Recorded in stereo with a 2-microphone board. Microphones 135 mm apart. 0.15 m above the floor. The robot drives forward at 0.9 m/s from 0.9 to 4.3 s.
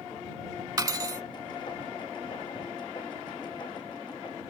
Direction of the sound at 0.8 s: 25° right (ahead or behind).